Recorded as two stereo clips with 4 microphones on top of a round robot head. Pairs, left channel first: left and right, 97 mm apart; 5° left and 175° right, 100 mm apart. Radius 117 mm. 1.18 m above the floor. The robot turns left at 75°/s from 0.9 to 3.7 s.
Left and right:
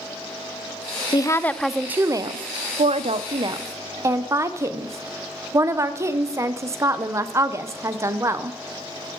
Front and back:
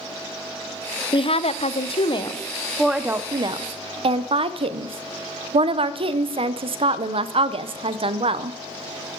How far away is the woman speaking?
About 0.6 m.